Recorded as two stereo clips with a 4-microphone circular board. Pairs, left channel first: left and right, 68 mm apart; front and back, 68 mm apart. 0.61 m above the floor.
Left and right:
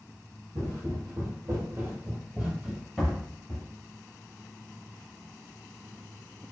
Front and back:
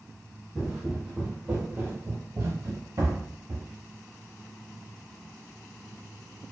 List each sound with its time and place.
0.6 s footsteps: 100° right, 1.2 m; by 3.6 s 160° left, 1.1 m